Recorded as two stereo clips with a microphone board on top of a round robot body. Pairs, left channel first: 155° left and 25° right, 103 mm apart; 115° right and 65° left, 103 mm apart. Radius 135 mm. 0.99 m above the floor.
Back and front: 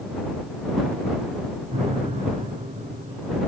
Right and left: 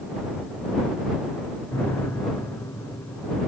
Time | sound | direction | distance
1.7 | a piano | 45° right | ?